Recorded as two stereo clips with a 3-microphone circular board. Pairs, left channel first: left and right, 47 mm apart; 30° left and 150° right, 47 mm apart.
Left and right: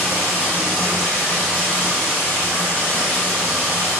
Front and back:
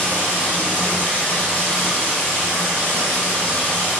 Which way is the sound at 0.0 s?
80° left.